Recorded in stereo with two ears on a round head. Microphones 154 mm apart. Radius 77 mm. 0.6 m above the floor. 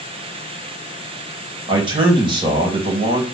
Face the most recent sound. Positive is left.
turn(degrees=-30)  # may be behind; listen again after turning